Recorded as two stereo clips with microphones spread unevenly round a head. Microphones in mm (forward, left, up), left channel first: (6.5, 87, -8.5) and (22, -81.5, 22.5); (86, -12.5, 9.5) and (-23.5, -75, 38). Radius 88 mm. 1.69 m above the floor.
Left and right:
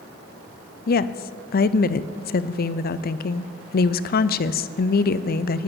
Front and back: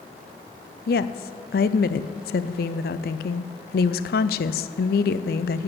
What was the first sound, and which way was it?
A woman speaking, 55° left.